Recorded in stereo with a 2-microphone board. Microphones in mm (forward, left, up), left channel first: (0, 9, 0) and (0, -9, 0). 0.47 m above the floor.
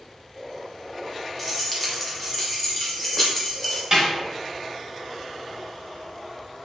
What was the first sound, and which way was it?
Keys jangling, 5° right (ahead or behind).